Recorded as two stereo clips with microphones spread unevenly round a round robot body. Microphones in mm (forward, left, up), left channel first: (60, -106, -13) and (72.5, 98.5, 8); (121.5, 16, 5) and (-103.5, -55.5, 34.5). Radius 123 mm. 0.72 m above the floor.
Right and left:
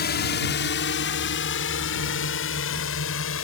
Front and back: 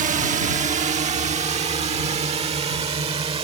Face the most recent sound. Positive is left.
turn(degrees=-95)